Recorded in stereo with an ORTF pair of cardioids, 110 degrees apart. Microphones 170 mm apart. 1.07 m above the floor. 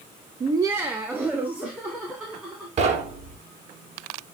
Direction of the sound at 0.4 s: 30° right.